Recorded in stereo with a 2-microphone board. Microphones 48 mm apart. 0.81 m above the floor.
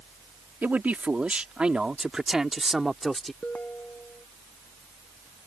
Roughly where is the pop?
No pop in this recording.